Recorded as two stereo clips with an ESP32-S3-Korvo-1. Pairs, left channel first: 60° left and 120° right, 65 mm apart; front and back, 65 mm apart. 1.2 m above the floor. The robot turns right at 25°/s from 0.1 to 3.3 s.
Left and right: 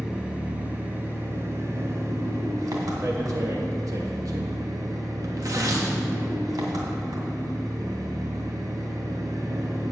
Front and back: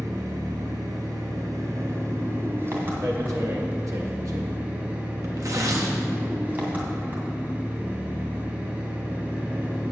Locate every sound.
0.0 s an engine running: 160° left, 2.5 m; by 9.9 s 120° right, 2.5 m
3.0 s tearing paper: 155° right, 1.4 m; by 5.9 s 145° right, 1.4 m